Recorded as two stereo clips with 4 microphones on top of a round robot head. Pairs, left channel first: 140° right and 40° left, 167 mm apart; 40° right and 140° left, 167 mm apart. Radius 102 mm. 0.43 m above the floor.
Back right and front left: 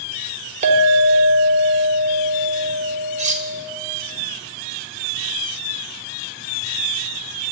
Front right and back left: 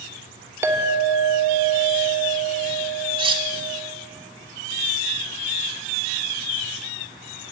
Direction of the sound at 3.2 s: 80° left.